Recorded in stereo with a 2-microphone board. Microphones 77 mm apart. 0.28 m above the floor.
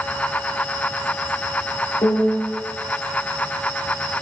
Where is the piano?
65° left (ahead or behind), 3 m.